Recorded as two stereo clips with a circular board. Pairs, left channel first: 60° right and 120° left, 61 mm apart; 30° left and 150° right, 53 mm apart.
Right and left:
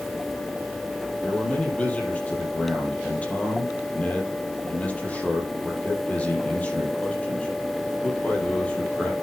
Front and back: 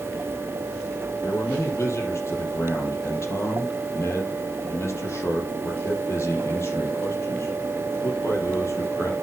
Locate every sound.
1.2 s a man speaking: 5° left, 5 m